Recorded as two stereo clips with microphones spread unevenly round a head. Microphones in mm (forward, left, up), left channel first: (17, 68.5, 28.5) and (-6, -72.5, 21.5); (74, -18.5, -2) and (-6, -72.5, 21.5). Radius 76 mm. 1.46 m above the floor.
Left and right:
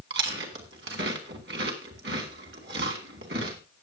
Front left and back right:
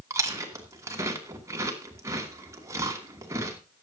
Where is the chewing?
100° right, 2.5 m.